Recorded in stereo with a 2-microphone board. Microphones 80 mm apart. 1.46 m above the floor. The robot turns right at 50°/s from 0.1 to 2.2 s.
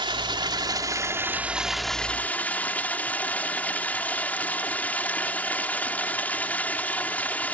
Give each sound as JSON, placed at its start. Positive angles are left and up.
{"t": 0.0, "sound": "running water", "azimuth_deg": -85}